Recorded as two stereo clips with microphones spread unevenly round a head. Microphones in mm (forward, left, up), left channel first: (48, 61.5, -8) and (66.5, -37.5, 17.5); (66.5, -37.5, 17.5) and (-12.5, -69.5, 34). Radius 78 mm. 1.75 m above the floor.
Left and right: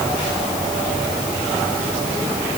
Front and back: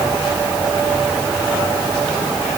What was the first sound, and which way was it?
Only background noise.